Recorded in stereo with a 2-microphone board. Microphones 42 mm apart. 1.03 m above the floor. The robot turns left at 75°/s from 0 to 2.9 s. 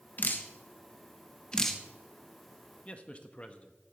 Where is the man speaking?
35° left (ahead or behind), 1.1 m; by 3.8 s 30° left (ahead or behind), 1.1 m.